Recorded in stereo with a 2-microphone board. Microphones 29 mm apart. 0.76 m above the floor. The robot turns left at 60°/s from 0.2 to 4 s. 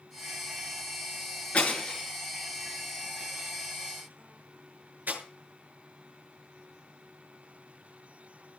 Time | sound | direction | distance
1.5 | breaking glass | 50° left (ahead or behind) | 6.5 m